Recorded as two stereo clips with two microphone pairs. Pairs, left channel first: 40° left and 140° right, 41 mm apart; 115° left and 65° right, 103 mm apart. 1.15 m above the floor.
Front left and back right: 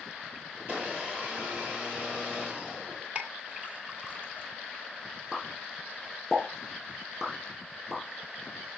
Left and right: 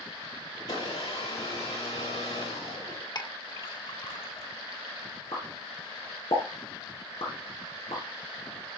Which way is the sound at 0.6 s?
165° left.